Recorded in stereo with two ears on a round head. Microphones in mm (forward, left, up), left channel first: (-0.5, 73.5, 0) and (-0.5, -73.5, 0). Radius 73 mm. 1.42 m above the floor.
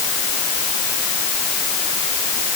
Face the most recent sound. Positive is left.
No sound to turn to.